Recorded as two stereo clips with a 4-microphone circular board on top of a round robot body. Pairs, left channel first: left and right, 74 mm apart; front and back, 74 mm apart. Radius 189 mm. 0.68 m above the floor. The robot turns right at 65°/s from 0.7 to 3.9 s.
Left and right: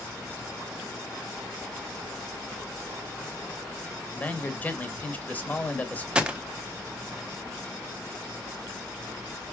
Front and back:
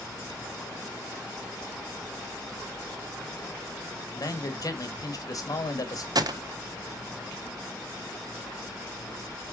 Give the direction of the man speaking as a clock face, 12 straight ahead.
11 o'clock.